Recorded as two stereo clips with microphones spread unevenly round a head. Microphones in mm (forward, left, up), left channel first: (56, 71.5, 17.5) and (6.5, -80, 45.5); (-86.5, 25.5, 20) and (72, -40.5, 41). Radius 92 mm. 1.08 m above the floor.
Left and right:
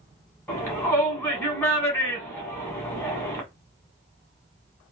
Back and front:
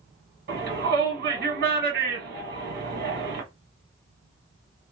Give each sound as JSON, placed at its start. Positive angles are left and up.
{"t": 0.5, "sound": "a shout", "azimuth_deg": 0, "distance_m": 1.2}